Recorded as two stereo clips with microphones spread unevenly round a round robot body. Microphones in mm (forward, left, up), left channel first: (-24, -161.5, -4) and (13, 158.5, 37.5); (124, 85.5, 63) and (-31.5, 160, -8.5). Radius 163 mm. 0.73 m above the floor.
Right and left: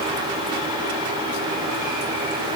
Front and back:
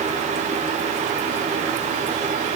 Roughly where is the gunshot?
No gunshot in this recording.